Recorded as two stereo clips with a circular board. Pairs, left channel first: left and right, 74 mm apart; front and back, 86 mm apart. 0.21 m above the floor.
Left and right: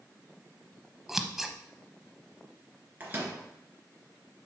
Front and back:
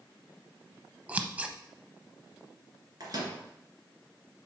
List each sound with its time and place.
1.1 s scissors: 165° right, 0.7 m
3.0 s a microwave: 150° right, 2.5 m